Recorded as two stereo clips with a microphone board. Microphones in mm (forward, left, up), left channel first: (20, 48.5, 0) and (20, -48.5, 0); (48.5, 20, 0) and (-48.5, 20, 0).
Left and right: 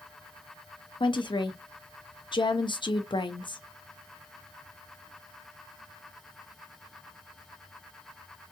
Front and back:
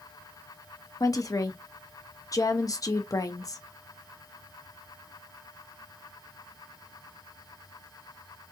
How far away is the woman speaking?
About 1.1 m.